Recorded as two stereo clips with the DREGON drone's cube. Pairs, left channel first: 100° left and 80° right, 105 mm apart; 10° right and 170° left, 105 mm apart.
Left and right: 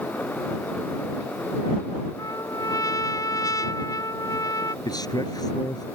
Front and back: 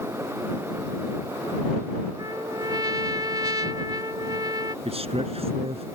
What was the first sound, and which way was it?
A trumpet, 135° left.